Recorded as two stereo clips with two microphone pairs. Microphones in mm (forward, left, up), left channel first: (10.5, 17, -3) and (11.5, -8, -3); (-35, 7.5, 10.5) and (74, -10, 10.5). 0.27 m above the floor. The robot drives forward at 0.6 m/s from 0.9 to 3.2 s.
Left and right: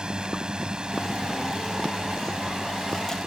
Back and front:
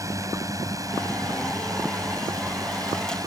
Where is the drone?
55° right; by 3.3 s 50° right.